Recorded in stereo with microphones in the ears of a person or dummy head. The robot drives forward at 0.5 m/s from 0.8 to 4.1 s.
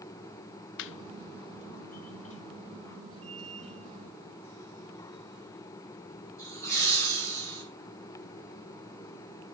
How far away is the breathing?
I don't hear breathing.